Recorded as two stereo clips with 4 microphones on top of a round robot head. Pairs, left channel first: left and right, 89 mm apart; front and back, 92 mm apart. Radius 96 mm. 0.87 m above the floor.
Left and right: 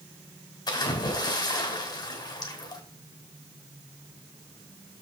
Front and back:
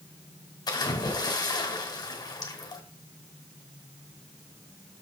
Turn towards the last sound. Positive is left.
turn(degrees=45)